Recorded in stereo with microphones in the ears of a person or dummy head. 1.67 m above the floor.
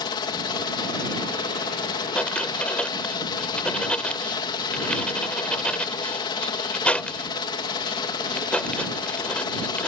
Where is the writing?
5° left (ahead or behind).